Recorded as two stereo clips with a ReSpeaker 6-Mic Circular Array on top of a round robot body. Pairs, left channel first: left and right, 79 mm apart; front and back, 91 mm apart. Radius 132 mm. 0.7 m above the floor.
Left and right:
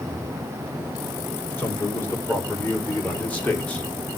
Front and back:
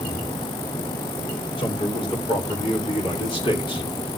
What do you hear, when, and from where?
1.6 s a man speaking: 25° left, 4.5 m; by 3.9 s 15° left, 2.5 m